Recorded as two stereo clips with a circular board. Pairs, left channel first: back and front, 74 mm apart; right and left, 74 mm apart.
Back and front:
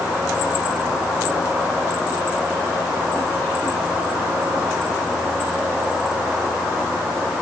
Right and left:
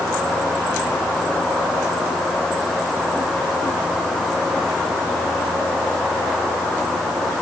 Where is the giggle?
I don't hear a giggle.